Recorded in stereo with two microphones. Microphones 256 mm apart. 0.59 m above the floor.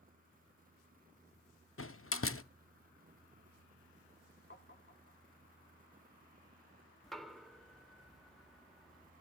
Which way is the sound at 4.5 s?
45° left (ahead or behind).